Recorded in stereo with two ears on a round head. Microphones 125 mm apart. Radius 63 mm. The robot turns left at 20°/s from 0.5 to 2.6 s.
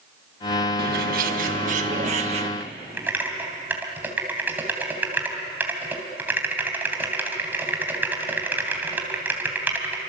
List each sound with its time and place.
0.8 s a bird: 100° right, 1.6 m; by 2.5 s 135° right, 1.6 m
2.6 s typing on a keyboard: 15° right (ahead or behind), 3 m